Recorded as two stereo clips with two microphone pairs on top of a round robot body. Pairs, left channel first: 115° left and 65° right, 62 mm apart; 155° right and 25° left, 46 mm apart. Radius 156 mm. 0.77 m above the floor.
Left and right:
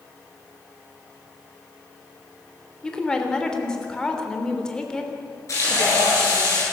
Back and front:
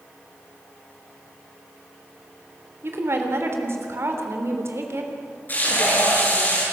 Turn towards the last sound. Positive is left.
turn(degrees=155)